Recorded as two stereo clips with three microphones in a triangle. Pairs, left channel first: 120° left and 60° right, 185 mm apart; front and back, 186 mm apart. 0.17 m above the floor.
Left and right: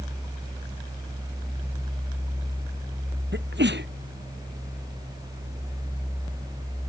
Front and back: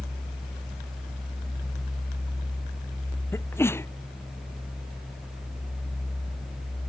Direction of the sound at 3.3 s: 75° right.